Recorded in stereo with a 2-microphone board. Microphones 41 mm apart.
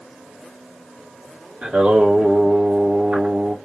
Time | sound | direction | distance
1.6 | singing | 50° right (ahead or behind) | 1.6 m